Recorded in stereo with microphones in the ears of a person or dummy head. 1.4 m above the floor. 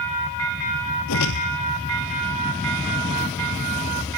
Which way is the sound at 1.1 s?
75° left (ahead or behind).